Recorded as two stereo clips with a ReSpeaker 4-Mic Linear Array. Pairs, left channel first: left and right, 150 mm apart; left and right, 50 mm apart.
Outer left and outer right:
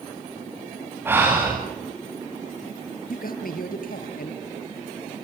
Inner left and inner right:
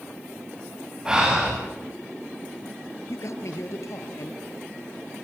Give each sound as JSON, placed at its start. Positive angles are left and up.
{"t": 1.1, "sound": "breathing", "side_deg": -15, "distance_m": 9.5}
{"t": 3.1, "sound": "a man speaking", "side_deg": 75, "distance_m": 4.0}